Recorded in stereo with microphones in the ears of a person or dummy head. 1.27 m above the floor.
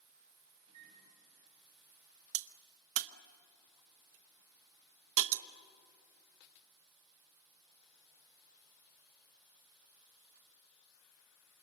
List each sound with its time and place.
0.7 s a microwave: 35° right (ahead or behind), 6 m
2.3 s a crack: 75° right (ahead or behind), 0.8 m